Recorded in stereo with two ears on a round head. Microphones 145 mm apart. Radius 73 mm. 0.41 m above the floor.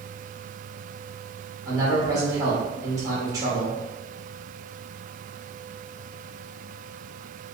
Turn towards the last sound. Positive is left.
turn(degrees=-20)  # may be behind; listen again after turning